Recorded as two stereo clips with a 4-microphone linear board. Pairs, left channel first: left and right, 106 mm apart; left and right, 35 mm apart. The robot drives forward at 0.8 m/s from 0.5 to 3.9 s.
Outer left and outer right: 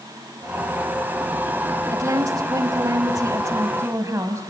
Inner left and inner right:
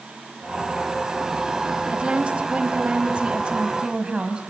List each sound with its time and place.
1.9 s a woman speaking: 35° right (ahead or behind), 1.5 m; by 4.4 s 30° right (ahead or behind), 1.7 m